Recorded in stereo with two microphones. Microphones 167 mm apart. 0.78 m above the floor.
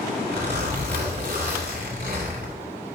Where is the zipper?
80° right, 2.5 m.